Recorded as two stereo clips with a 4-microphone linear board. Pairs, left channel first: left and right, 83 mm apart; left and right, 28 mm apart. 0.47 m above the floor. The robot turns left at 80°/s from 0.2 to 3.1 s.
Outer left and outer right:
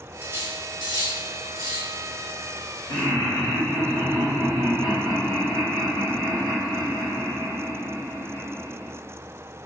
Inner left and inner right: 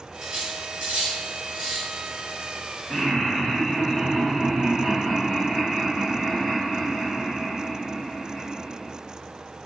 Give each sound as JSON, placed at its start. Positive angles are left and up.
{"t": 0.2, "sound": "cutlery clinking", "side_deg": -20, "distance_m": 2.0}
{"t": 2.9, "sound": "laughter", "side_deg": 45, "distance_m": 1.7}